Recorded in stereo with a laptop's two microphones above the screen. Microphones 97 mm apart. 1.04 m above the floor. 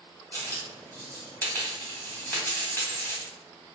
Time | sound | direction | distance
0.3 | a dropped coin | 20° left (ahead or behind) | 1.0 m